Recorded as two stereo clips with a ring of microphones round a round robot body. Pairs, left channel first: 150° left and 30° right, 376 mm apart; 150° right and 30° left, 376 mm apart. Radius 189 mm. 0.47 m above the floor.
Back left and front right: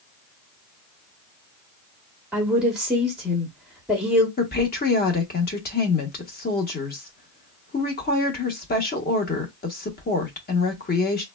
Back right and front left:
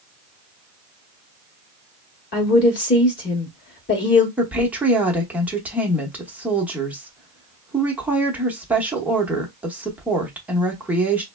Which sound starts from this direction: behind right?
A woman speaking, at 2.3 s.